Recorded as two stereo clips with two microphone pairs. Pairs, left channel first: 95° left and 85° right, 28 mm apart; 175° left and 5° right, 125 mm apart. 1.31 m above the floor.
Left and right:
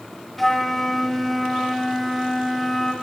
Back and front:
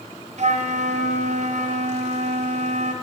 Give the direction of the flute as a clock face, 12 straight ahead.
12 o'clock.